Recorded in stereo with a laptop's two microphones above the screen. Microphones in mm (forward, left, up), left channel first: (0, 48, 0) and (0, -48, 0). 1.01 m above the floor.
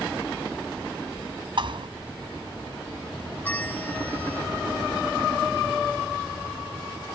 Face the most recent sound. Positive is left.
turn(degrees=15)  # may be behind; listen again after turning